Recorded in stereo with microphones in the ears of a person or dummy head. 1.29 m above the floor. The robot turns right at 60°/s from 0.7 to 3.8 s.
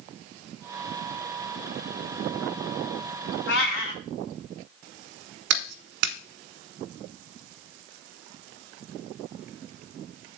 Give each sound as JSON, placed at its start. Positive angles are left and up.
{"t": 3.5, "sound": "a cat meowing", "side_deg": 65, "distance_m": 1.4}
{"t": 5.5, "sound": "a clap", "side_deg": -65, "distance_m": 1.4}